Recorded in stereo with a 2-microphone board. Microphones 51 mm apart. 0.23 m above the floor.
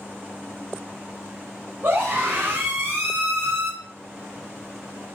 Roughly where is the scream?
Right.